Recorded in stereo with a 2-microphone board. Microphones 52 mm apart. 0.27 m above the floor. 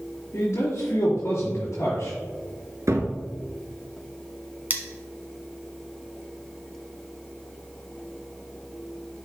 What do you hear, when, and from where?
0.3 s a man speaking: 75° left (ahead or behind), 3.5 m
2.9 s a cupboard door: 65° right (ahead or behind), 1.1 m
4.7 s cutlery clinking: 35° right (ahead or behind), 1.2 m